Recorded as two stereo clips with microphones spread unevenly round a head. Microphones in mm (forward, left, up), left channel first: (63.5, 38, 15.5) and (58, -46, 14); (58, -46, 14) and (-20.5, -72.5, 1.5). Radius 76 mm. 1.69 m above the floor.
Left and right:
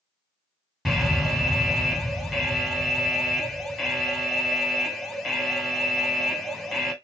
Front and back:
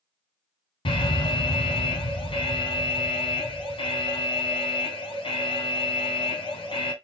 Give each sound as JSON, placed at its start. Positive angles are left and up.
{"t": 0.8, "sound": "an alarm", "azimuth_deg": 0, "distance_m": 1.8}